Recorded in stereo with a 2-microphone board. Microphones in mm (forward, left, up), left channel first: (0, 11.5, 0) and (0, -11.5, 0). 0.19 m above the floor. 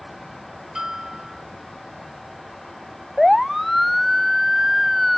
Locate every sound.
0.8 s a bell: 15° right (ahead or behind)
3.2 s a siren: centre (ahead or behind); by 5.2 s 5° right (ahead or behind)